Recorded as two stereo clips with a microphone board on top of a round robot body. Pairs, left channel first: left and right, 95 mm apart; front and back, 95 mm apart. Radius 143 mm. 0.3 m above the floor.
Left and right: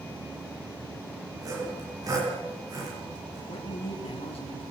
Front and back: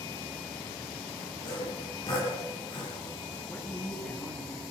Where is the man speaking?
75° left, 7 m.